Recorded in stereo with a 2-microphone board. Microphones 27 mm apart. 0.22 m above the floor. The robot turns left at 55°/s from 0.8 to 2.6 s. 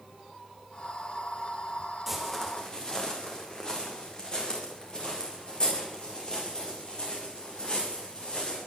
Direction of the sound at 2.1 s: 10° right (ahead or behind).